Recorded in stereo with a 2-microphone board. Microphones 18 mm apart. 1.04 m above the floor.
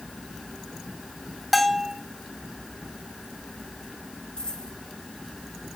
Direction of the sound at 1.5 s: Centre (ahead or behind).